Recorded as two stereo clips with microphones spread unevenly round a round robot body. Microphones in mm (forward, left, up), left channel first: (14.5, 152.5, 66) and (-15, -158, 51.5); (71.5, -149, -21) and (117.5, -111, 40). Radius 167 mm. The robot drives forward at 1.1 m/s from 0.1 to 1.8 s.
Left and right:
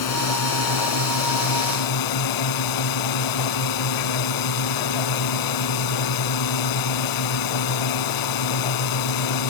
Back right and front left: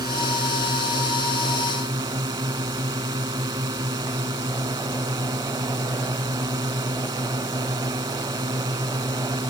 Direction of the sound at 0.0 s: 50° left.